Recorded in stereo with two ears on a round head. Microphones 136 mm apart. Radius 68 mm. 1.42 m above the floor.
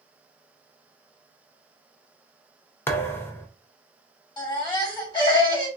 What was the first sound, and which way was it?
A thud, 15° left (ahead or behind).